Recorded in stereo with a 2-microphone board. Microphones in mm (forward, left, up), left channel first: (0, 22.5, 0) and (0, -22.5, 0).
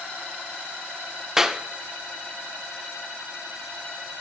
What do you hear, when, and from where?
1.4 s a clap: 10° right (ahead or behind), 0.6 m